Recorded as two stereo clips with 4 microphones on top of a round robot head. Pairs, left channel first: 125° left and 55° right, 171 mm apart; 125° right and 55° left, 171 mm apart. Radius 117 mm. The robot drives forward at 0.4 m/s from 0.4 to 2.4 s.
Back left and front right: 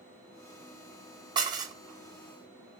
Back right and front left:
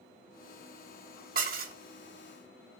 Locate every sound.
1.4 s dishes clattering: 15° left, 0.9 m